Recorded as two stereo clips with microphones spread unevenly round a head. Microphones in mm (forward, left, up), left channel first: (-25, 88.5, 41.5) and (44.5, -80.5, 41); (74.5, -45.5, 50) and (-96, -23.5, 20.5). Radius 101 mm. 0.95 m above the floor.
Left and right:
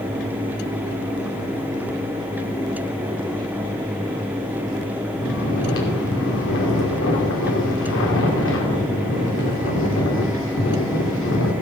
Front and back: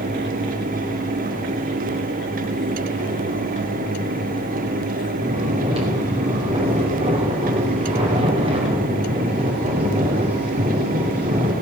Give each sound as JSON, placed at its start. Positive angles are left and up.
{"t": 5.2, "sound": "snoring", "azimuth_deg": 110, "distance_m": 3.0}